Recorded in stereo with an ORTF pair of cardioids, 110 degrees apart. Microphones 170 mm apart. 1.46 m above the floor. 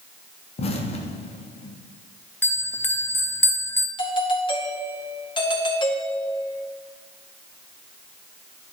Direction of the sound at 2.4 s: 10° left.